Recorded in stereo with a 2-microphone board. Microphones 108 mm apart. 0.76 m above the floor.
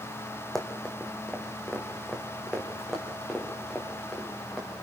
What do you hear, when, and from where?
0.6 s running footsteps: 5° left (ahead or behind), 2 m; by 4.7 s centre (ahead or behind), 5.5 m